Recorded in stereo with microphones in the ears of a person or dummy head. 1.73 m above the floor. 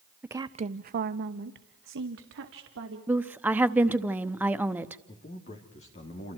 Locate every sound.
0.2 s a woman speaking: 10° right (ahead or behind), 0.8 m; by 3.0 s 70° right (ahead or behind), 3 m
3.1 s a woman speaking: 10° right (ahead or behind), 1.0 m
5.1 s a man speaking: 40° left (ahead or behind), 3 m